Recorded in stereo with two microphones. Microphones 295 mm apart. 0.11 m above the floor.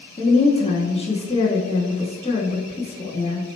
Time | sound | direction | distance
0.2 | a woman speaking | 20° left (ahead or behind) | 1.1 m